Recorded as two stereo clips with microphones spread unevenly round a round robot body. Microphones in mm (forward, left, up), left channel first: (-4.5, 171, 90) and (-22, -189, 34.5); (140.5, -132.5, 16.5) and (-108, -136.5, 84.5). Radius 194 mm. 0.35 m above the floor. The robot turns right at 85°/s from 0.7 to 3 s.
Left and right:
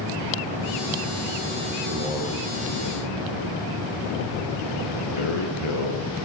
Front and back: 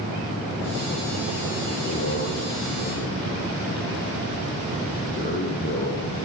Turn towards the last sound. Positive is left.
turn(degrees=60)